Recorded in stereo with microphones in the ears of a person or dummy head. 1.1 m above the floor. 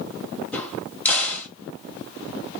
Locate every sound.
0.5 s a crack: 5° left (ahead or behind), 1.7 m